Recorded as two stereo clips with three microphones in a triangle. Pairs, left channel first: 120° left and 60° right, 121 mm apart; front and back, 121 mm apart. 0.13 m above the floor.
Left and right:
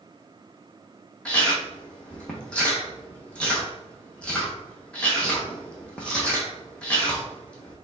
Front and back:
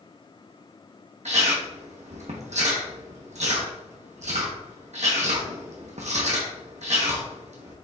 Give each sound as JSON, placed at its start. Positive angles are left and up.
{"t": 1.2, "sound": "chewing", "azimuth_deg": -160, "distance_m": 1.4}